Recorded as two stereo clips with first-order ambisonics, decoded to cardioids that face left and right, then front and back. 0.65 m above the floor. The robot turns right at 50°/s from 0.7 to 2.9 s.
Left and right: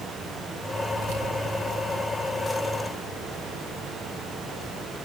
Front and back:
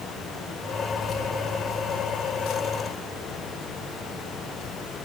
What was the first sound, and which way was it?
Keys jangling, 70° right.